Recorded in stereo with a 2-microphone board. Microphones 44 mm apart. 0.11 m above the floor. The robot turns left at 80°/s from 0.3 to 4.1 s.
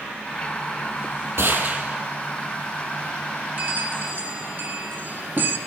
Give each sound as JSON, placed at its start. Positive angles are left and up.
{"t": 1.4, "sound": "a gunshot", "azimuth_deg": -115, "distance_m": 3.0}
{"t": 3.6, "sound": "a bell", "azimuth_deg": -55, "distance_m": 1.5}